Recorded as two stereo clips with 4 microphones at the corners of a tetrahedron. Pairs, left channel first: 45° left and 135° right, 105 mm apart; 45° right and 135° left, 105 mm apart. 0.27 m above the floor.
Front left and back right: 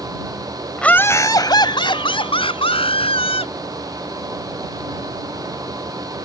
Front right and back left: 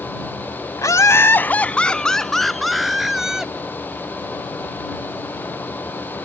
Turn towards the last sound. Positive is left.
turn(degrees=50)